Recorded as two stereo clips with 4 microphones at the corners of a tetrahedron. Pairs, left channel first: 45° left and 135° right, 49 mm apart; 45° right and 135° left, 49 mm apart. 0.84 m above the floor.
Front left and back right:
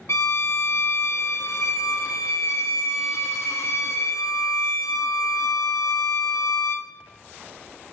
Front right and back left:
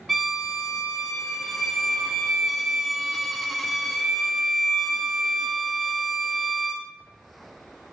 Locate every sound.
0.1 s a violin: 45° left, 0.8 m